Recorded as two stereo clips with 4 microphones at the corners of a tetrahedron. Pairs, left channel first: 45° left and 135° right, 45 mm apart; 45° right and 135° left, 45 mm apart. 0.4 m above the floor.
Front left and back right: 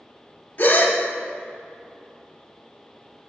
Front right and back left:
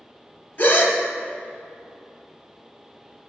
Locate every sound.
0.6 s a gasp: 5° right, 1.1 m